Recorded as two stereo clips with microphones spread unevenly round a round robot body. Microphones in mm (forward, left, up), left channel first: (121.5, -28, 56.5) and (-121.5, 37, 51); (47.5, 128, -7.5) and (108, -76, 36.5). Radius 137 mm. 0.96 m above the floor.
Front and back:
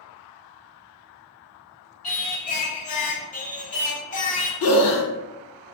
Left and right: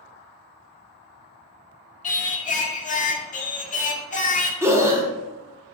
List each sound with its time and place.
2.0 s singing: 45° left, 0.5 m
4.6 s breathing: 10° left, 0.7 m